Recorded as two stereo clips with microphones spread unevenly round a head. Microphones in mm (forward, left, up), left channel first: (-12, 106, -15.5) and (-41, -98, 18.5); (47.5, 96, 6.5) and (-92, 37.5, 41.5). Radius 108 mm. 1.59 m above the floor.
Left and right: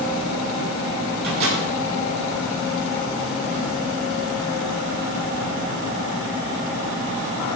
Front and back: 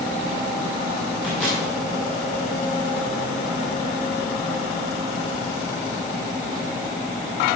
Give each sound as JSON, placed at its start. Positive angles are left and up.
{"t": 1.2, "sound": "a microwave", "azimuth_deg": -65, "distance_m": 6.0}